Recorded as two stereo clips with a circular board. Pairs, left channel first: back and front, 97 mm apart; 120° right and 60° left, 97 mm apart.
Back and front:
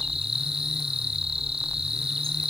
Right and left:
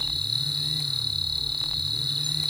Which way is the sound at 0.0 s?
25° left.